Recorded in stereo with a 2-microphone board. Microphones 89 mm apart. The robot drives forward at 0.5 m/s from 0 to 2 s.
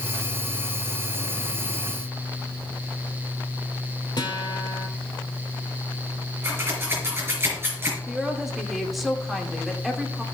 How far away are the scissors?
About 4.5 m.